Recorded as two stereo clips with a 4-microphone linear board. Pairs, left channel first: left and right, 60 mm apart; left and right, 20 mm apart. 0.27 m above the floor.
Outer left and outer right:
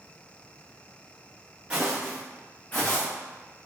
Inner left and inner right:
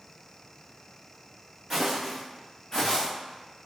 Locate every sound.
1.7 s footsteps: 15° right (ahead or behind), 1.2 m; by 3.1 s 50° left (ahead or behind), 1.1 m